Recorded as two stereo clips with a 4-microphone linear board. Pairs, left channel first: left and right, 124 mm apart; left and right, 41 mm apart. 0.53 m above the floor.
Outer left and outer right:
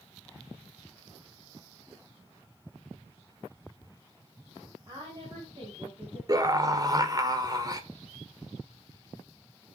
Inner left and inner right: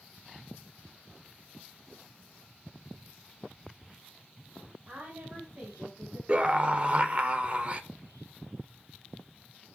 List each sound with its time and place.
4.9 s a woman speaking: 35° right (ahead or behind), 4.5 m; by 6.2 s 45° right (ahead or behind), 4 m
6.3 s a scream: 30° right (ahead or behind), 1.7 m